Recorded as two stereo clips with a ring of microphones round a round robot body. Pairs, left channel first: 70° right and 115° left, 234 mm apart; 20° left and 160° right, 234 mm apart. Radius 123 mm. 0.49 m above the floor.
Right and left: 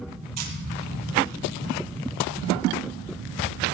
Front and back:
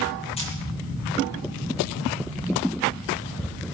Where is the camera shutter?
90° left, 4.5 m.